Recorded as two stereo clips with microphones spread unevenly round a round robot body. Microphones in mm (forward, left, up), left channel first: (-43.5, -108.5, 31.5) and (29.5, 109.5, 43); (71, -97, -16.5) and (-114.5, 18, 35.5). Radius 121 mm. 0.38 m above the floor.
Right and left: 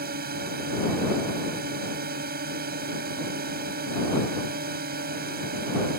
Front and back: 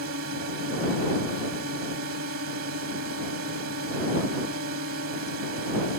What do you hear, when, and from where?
0.0 s a drone: 115° left